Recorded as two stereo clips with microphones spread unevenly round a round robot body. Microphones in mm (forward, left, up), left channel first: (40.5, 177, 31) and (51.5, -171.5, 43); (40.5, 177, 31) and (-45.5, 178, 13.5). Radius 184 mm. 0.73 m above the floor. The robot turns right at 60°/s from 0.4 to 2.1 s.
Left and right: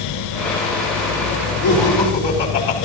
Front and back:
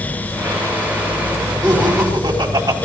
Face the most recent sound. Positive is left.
turn(degrees=160)